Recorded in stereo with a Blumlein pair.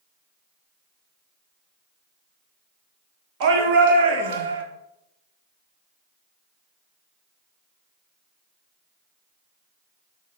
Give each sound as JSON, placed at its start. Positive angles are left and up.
{"t": 3.4, "sound": "a shout", "azimuth_deg": -45, "distance_m": 3.5}